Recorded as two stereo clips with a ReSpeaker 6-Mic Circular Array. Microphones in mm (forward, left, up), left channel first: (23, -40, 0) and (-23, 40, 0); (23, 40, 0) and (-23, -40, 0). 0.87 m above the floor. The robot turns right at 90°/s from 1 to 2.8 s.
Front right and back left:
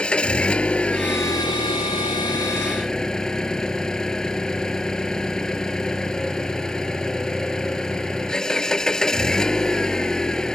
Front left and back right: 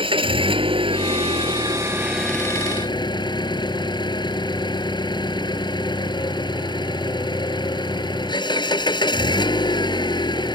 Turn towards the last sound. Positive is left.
turn(degrees=25)